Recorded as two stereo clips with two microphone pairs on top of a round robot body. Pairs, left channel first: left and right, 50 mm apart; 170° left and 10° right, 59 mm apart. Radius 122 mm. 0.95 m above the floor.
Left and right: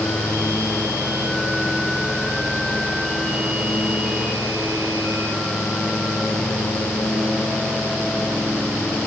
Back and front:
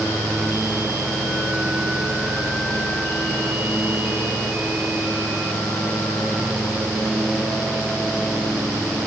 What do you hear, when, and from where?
Only background noise.